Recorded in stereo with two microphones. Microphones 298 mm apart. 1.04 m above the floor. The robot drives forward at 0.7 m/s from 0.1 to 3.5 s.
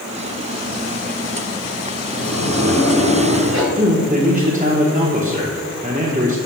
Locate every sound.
2.1 s a sliding door: 70° right (ahead or behind), 1.2 m; by 3.6 s 45° right (ahead or behind), 1.7 m
3.8 s a man speaking: 25° right (ahead or behind), 1.0 m